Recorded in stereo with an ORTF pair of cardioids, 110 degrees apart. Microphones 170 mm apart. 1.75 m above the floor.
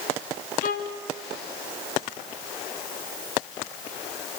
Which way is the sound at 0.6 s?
60° left.